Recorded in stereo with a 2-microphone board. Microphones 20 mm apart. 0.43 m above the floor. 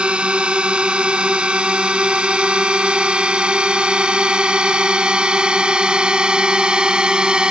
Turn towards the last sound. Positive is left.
turn(degrees=-40)  # may be behind; listen again after turning